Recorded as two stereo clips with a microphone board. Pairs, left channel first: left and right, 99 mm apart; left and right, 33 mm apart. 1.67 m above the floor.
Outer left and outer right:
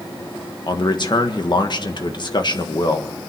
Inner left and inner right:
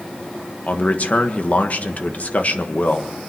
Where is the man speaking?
50° left (ahead or behind), 1.4 m.